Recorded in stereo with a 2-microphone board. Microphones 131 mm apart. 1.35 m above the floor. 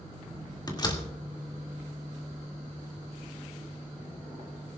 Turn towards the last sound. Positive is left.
turn(degrees=30)  # may be behind; listen again after turning